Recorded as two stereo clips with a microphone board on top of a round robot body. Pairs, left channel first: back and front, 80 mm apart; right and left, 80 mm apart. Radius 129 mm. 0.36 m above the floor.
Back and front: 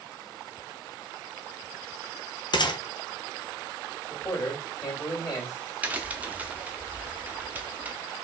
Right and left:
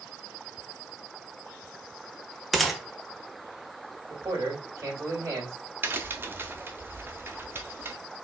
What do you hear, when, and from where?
2.5 s a gunshot: straight behind, 0.8 m
4.1 s a man speaking: 140° left, 2.5 m
5.8 s a crack: 55° left, 0.8 m